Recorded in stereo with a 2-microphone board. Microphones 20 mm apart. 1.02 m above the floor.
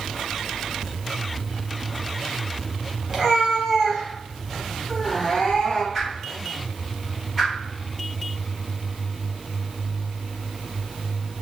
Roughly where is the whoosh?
Centre.